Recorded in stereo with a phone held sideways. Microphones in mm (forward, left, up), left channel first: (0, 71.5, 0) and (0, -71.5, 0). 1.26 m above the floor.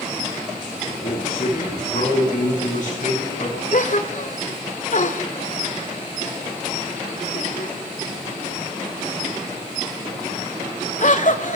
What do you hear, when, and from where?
0.9 s a man speaking: 55° left (ahead or behind), 9.5 m
3.7 s a gasp: 60° left (ahead or behind), 1.6 m